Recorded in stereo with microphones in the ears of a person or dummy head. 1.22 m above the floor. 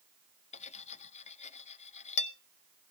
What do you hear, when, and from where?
0.5 s cutlery clinking: 35° left (ahead or behind), 0.7 m